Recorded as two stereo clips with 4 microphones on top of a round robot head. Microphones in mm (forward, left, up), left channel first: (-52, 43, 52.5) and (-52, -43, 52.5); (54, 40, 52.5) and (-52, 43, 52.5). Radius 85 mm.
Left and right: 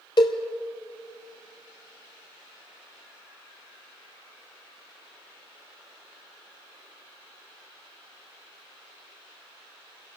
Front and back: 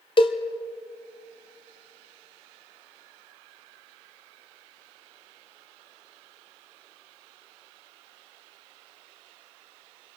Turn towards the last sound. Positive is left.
turn(degrees=40)